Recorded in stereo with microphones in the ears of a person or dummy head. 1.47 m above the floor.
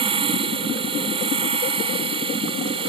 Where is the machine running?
25° right (ahead or behind).